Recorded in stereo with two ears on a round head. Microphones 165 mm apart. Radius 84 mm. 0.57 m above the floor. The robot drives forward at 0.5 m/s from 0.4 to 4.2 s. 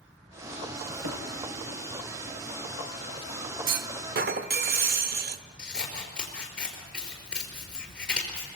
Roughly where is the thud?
Right.